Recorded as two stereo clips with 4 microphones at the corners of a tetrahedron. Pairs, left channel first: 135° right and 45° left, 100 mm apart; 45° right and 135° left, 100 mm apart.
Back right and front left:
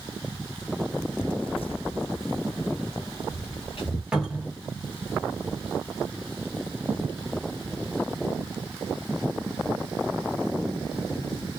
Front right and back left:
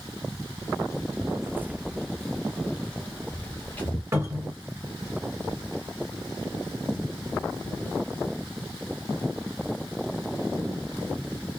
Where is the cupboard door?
120° left, 1.5 m.